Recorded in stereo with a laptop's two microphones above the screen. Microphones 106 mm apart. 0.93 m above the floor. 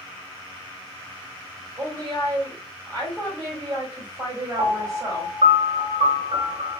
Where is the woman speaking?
40° right (ahead or behind), 1.9 m.